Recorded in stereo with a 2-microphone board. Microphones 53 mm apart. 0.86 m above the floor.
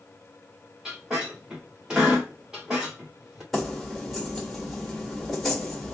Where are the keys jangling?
Centre (ahead or behind), 1.8 m.